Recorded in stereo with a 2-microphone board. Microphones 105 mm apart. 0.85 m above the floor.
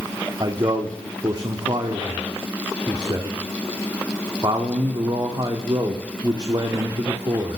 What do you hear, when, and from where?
0.4 s a man speaking: 40° right (ahead or behind), 1.8 m